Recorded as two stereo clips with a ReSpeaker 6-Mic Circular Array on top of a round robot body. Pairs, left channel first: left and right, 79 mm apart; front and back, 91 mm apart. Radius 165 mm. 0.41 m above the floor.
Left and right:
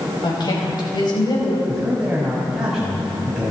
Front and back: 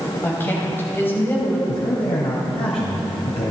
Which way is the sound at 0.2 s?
65° left.